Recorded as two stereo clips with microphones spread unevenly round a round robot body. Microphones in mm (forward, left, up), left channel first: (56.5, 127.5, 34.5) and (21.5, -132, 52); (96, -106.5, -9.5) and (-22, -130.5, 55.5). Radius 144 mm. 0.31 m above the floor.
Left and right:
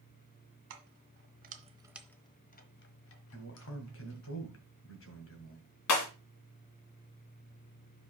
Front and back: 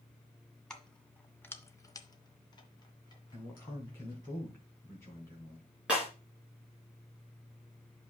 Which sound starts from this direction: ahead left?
A man speaking, at 3.3 s.